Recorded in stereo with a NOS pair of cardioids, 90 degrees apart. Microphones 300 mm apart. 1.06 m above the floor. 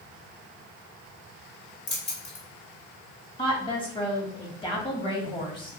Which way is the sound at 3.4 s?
15° left.